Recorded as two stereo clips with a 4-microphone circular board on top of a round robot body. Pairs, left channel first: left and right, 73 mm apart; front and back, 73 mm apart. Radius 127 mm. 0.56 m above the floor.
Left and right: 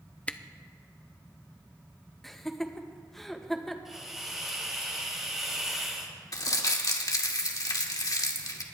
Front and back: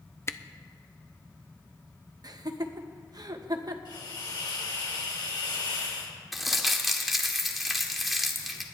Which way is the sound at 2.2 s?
175° left.